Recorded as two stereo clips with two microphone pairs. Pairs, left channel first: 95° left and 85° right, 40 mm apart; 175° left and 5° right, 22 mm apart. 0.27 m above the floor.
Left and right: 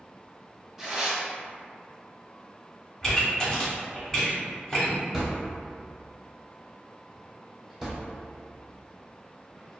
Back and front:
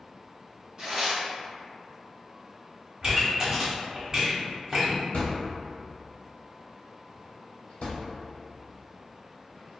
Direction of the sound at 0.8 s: 5° right.